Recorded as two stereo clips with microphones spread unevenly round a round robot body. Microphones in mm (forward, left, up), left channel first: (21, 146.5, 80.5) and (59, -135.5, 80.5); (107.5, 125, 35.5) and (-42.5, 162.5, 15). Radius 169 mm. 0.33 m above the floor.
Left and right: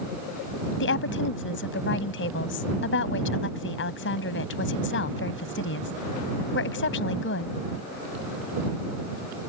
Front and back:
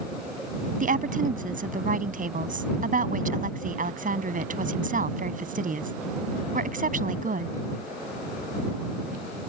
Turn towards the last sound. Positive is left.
turn(degrees=145)